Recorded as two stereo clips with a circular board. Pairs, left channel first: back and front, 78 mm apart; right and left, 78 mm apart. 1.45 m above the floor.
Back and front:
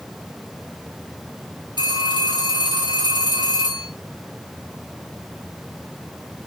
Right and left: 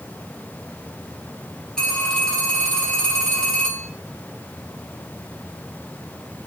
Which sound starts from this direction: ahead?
A phone ringing, at 1.8 s.